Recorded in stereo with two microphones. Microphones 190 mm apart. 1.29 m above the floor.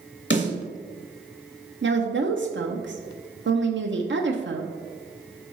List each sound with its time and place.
0.3 s a snare drum: 75° left (ahead or behind), 2.5 m
1.8 s a woman speaking: 80° right, 0.6 m